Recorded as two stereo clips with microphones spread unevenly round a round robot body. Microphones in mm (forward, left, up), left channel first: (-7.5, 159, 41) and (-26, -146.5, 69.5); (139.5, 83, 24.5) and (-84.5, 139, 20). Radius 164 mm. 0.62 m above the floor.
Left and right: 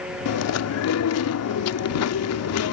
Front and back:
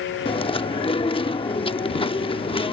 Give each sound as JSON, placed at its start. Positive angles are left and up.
{"t": 0.2, "sound": "chewing", "azimuth_deg": 55}